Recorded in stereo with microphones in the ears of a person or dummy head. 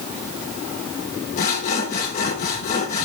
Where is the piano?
No piano in this recording.